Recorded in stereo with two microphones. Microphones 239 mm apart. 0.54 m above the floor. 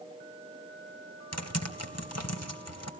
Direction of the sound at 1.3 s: 75° left (ahead or behind).